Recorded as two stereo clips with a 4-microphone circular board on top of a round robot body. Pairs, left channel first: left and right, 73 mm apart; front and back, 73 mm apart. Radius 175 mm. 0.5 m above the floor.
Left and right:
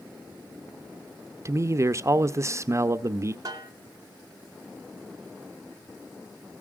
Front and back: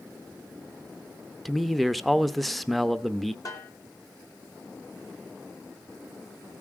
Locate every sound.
1.4 s a man speaking: 90° right, 0.8 m
3.5 s a snare drum: 45° right, 1.9 m